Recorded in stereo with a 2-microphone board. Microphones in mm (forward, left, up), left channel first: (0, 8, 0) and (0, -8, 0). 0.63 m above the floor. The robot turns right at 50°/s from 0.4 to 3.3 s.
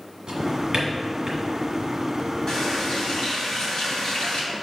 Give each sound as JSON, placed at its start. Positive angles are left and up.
{"t": 0.3, "sound": "a drawer", "side_deg": -85, "distance_m": 1.6}
{"t": 2.5, "sound": "a running tap", "azimuth_deg": 40, "distance_m": 2.5}